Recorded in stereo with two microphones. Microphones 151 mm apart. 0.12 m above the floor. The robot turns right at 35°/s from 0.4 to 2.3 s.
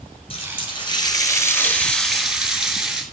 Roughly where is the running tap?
Behind left.